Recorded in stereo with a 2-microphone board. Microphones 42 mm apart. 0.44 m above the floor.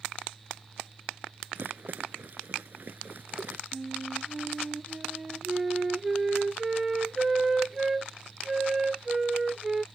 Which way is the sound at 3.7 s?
10° right (ahead or behind).